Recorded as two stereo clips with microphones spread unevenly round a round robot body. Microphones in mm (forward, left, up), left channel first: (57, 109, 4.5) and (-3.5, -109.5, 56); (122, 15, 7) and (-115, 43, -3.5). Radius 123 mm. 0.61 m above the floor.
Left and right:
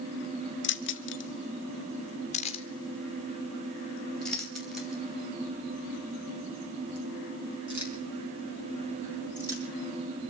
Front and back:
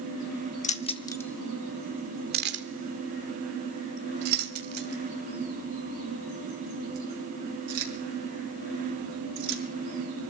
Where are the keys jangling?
50° left, 1.3 m; by 9.6 s 175° left, 7 m.